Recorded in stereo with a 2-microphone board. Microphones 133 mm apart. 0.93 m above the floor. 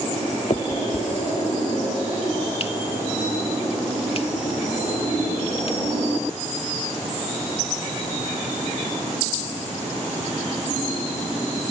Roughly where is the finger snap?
Left.